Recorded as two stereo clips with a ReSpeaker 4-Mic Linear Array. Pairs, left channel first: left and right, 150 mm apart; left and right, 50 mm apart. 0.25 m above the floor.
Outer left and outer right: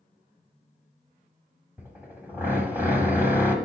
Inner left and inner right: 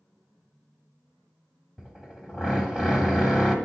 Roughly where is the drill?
Centre.